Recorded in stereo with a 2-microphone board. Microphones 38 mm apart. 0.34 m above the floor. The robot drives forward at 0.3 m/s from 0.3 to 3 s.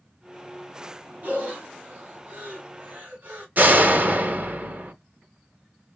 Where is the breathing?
45° right (ahead or behind), 2 m.